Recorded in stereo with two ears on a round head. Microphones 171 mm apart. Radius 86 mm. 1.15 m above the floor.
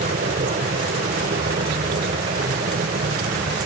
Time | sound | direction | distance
0.0 | an aircraft | 40° right (ahead or behind) | ?